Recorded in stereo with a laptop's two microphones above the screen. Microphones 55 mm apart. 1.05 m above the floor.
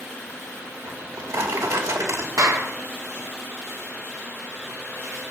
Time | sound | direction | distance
0.9 | a drawer | 75° right (ahead or behind) | 2.5 m
2.4 | a clap | 85° right | 1.7 m